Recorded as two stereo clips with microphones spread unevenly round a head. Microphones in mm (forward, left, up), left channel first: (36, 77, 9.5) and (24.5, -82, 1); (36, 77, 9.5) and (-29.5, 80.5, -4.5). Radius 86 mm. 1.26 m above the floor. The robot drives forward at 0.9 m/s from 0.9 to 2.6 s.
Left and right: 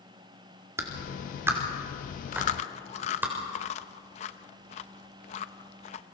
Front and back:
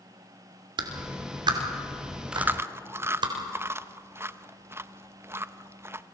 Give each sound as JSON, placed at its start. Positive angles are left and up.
{"t": 0.8, "sound": "a clap", "azimuth_deg": -170, "distance_m": 2.0}
{"t": 2.3, "sound": "chewing", "azimuth_deg": 90, "distance_m": 0.6}